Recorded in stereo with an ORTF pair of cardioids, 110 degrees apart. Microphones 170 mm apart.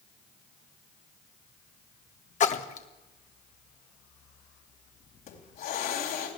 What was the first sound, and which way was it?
A splash, 45° left.